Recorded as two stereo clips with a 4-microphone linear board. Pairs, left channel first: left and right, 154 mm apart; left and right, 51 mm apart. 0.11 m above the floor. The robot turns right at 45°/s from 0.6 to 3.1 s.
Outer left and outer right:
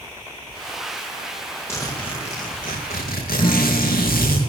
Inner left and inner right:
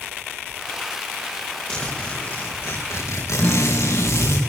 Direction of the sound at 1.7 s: 15° left.